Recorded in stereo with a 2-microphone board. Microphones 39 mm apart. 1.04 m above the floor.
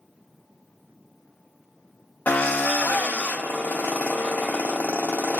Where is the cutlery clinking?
I don't hear cutlery clinking.